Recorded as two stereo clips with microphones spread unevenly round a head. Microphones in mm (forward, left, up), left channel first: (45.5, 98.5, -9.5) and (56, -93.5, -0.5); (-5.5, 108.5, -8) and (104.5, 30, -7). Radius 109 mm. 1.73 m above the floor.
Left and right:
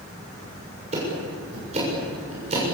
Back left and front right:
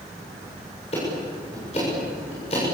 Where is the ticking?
150° right, 7 m.